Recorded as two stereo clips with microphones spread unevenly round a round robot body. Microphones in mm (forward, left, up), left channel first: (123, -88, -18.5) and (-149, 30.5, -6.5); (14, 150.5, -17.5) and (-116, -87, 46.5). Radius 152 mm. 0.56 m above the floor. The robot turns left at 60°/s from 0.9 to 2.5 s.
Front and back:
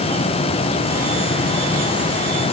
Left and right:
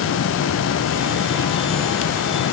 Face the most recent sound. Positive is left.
No sound to turn to.